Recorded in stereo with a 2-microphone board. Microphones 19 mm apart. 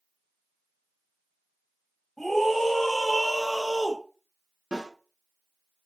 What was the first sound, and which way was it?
A scream, 10° left (ahead or behind).